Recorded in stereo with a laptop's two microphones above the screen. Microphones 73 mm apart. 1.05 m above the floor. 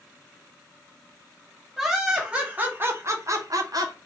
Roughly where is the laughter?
Centre.